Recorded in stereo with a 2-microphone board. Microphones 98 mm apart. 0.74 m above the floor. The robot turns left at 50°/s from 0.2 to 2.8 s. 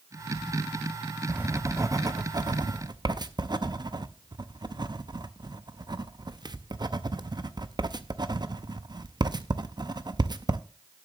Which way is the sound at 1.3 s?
15° right (ahead or behind).